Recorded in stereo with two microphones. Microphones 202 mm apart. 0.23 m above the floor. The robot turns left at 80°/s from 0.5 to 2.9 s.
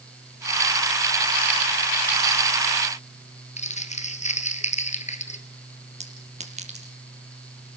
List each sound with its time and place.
3.6 s crumpling: 35° left (ahead or behind), 1.9 m
6.0 s a clink: 35° right (ahead or behind), 4.5 m